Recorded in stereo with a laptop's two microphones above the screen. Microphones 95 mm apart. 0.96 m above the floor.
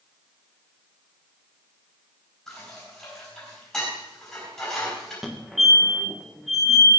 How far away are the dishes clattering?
About 5 m.